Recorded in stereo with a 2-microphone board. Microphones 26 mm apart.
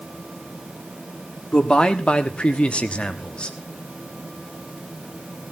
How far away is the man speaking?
About 1.7 m.